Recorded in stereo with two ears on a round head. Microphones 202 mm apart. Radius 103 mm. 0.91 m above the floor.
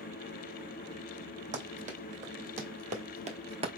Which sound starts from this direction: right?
Running footsteps, at 1.5 s.